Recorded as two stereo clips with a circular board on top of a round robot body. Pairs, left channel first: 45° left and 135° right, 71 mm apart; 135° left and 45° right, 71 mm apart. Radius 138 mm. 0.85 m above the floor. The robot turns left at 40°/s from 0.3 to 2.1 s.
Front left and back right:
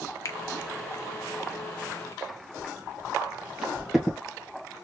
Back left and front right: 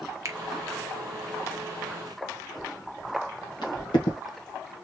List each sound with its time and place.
0.2 s a finger snap: straight ahead, 0.9 m; by 0.4 s 5° right, 0.9 m
2.6 s footsteps: 170° left, 1.8 m; by 4.2 s 135° left, 1.9 m